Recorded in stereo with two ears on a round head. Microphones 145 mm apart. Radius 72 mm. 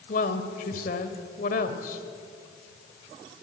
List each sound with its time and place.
0.1 s a woman speaking: 55° left (ahead or behind), 2 m